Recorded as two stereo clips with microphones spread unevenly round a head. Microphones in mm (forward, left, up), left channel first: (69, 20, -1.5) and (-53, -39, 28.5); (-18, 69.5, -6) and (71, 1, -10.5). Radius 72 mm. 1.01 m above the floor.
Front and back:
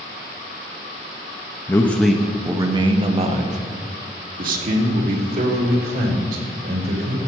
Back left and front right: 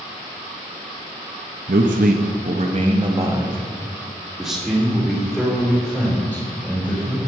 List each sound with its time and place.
1.7 s a man speaking: 40° right, 0.9 m; by 7.2 s 140° right, 3.5 m